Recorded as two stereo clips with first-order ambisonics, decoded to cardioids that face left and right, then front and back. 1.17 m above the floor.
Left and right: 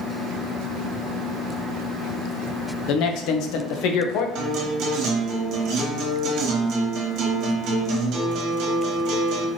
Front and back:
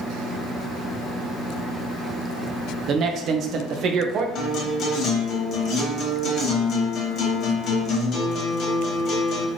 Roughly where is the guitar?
Ahead right.